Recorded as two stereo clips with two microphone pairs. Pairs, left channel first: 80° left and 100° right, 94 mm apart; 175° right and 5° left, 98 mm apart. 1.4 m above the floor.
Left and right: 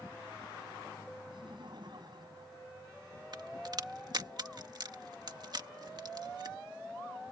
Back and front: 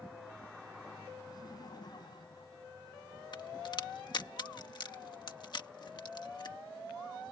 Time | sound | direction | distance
1.3 | laughter | 130° right | ?
3.3 | a crack | 135° right | ?